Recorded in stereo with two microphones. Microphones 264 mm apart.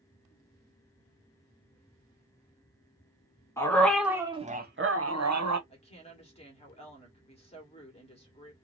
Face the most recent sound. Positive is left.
turn(degrees=20)  # may be behind; listen again after turning